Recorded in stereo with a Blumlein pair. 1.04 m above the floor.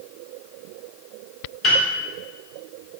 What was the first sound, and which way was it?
A piano, 30° left.